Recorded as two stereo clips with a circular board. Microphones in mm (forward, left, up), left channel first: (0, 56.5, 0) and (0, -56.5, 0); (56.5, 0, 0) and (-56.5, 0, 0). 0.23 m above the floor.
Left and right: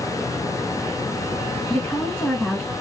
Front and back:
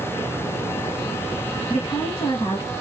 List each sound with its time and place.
1.7 s a woman speaking: 20° left, 1.7 m